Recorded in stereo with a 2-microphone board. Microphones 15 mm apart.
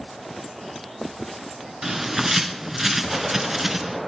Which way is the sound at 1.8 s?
30° right (ahead or behind).